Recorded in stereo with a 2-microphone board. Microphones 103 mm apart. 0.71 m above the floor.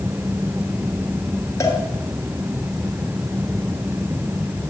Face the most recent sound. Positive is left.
turn(degrees=30)  # may be behind; listen again after turning